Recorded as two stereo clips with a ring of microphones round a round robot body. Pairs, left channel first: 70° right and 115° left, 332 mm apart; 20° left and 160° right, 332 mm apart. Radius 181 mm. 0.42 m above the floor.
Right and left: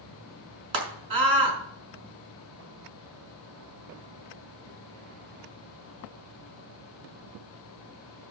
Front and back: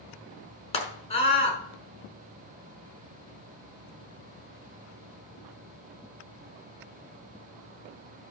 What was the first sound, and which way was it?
A scream, 95° left.